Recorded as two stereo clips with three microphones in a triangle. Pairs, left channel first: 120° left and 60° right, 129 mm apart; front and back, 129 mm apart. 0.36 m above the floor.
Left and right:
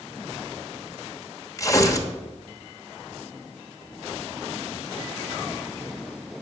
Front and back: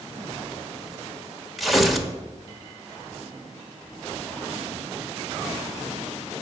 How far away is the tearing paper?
About 1.1 m.